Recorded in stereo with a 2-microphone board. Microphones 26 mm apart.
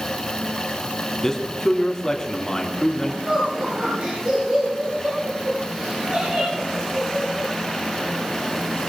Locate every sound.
1.2 s a man speaking: 15° left (ahead or behind), 3 m
3.3 s laughter: 55° right (ahead or behind), 8 m